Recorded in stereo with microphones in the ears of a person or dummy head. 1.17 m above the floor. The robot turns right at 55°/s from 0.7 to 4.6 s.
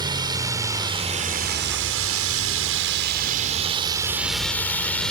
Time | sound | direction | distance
0.0 | a drone | 20° right (ahead or behind) | ?